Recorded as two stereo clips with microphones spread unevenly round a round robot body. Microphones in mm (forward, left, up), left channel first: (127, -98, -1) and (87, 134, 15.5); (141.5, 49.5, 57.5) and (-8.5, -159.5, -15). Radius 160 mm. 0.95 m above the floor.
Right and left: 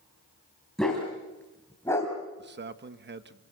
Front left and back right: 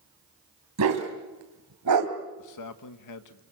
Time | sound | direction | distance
0.8 | a dog barking | 170° right | 3 m
2.4 | a man speaking | 60° left | 1.5 m